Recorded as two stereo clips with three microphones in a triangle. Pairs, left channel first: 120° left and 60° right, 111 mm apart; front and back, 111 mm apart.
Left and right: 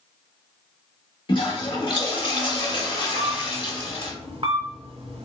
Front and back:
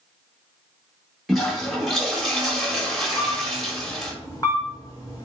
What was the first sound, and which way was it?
A toilet flushing, 90° left.